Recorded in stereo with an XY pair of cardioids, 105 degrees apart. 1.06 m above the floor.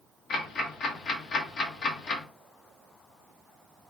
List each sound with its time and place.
0.3 s ticking: 60° left, 0.9 m